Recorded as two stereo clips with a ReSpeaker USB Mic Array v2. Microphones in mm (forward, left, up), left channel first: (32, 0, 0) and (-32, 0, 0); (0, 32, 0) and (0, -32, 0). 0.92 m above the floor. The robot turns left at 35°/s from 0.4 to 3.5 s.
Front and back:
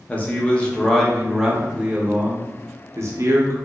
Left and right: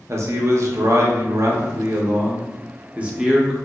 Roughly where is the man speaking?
Ahead right.